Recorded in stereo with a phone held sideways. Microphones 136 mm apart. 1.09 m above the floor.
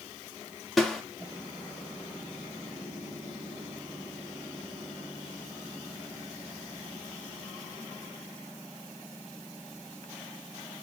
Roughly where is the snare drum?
Centre.